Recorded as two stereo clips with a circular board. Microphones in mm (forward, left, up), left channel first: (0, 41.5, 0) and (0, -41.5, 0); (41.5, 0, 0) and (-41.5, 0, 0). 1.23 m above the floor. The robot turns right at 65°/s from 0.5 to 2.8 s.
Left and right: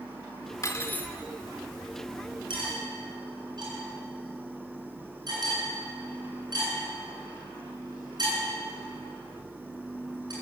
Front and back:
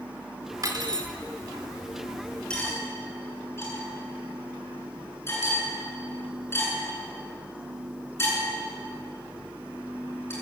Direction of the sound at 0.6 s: 135° left.